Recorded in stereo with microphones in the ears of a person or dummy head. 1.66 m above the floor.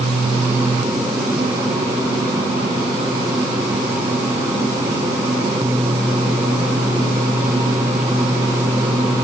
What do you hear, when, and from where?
Only background noise.